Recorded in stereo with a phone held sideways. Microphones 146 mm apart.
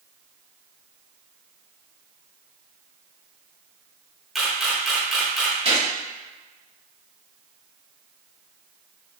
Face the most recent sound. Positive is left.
turn(degrees=-40)  # may be behind; listen again after turning